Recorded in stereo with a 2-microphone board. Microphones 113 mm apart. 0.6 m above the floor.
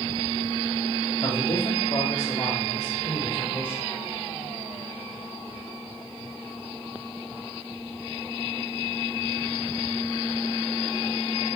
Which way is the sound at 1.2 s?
45° left (ahead or behind).